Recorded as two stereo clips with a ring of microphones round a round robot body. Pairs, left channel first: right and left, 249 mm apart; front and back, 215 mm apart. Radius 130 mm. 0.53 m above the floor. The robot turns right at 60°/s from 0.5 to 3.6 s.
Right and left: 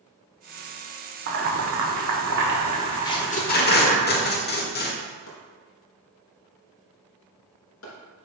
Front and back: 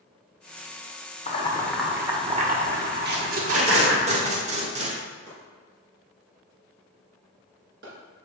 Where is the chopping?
130° right, 2.5 m.